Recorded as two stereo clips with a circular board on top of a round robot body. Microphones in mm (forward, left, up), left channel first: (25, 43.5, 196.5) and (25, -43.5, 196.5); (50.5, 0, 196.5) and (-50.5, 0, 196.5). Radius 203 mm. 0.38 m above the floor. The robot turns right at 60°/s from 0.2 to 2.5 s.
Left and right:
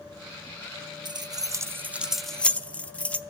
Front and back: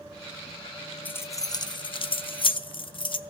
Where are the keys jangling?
70° right, 0.7 m; by 3.2 s 15° left, 0.7 m.